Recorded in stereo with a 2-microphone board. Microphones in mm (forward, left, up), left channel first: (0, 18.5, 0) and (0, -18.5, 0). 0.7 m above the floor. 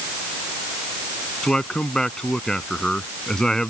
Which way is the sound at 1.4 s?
20° left (ahead or behind).